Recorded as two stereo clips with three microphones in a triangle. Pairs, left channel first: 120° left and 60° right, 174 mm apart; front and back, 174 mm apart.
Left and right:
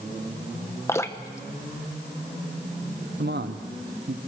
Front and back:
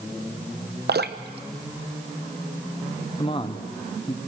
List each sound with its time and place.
0.9 s dripping: 170° right, 0.9 m
3.2 s a man speaking: 60° right, 1.1 m